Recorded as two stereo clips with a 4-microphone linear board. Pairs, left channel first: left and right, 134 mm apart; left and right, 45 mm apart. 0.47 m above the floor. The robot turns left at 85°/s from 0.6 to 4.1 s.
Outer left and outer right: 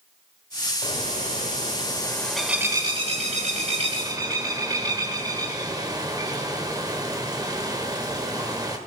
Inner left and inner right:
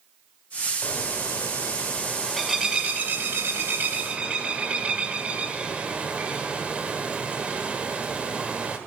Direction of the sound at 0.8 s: 135° left.